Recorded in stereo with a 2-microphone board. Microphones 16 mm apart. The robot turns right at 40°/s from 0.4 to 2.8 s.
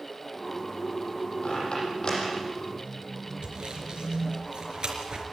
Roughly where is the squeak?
Left.